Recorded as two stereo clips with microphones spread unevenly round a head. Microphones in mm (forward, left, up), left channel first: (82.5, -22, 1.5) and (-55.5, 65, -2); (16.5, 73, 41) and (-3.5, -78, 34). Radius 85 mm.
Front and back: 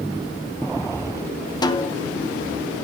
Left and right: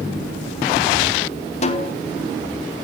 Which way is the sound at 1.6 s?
35° left.